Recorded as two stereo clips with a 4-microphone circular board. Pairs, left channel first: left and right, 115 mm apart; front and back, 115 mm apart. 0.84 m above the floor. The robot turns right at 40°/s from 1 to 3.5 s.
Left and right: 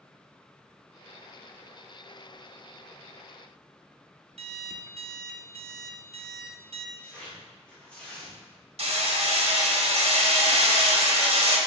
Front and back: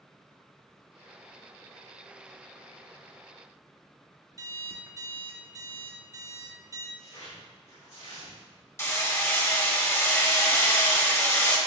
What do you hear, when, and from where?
4.4 s an alarm clock: 120° right, 0.7 m
7.0 s tearing paper: 10° left, 2.5 m
8.8 s hammering: 65° right, 1.1 m